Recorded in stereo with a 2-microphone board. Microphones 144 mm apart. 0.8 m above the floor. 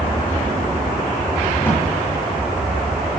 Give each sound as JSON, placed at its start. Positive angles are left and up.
{"t": 1.6, "sound": "a drawer", "side_deg": 15, "distance_m": 7.5}